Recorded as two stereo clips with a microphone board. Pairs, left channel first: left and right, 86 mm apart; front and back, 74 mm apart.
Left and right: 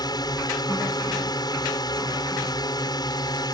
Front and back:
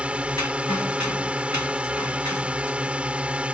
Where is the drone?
110° left.